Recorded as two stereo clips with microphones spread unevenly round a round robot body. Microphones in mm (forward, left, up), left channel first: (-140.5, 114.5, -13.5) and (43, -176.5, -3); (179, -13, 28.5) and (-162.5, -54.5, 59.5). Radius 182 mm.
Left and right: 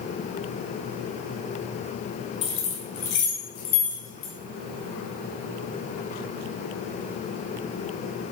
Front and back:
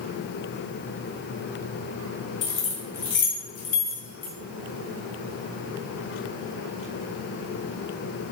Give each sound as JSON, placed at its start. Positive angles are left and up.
{"t": 2.4, "sound": "keys jangling", "azimuth_deg": 45, "distance_m": 3.0}